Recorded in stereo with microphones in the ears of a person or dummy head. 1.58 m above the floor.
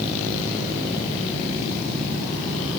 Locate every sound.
Only background noise.